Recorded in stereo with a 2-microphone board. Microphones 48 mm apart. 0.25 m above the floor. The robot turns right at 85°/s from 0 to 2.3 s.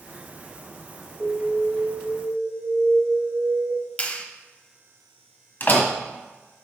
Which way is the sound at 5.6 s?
45° left (ahead or behind).